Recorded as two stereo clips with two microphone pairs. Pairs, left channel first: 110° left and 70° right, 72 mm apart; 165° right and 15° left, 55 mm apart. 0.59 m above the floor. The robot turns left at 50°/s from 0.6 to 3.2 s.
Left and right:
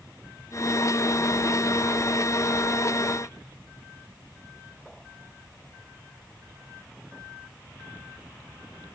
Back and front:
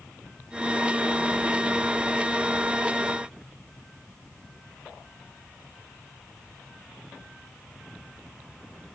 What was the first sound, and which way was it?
Only background noise.